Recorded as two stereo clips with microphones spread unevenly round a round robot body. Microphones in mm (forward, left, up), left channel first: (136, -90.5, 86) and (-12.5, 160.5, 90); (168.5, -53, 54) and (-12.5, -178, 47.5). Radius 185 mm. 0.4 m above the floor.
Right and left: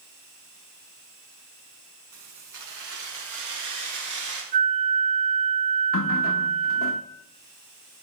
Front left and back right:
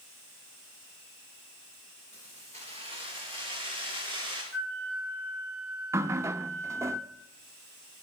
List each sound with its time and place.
2.1 s keys jangling: 110° left, 4 m; by 4.4 s 100° left, 5.5 m
4.5 s a flute: 150° left, 2.5 m
5.9 s a running tap: 70° right, 0.7 m